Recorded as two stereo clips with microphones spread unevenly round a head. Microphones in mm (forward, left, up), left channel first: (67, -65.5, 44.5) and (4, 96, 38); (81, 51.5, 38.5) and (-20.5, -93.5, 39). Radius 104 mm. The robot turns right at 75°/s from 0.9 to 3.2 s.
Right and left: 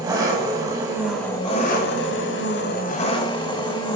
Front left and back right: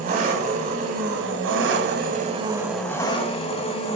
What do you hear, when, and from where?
0.0 s an engine running: straight behind, 1.4 m; by 4.0 s 5° right, 1.4 m